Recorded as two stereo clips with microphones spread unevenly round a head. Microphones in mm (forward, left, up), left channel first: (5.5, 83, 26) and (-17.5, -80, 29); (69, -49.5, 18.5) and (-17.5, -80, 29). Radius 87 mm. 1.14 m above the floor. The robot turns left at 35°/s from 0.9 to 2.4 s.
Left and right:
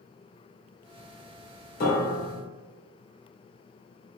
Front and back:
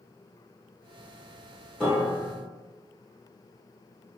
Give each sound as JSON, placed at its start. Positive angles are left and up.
{"t": 1.8, "sound": "a piano", "azimuth_deg": 110, "distance_m": 0.9}